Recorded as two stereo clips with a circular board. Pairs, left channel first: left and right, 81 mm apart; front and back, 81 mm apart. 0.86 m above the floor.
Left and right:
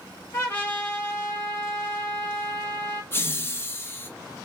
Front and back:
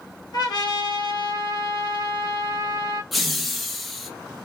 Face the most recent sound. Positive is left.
turn(degrees=90)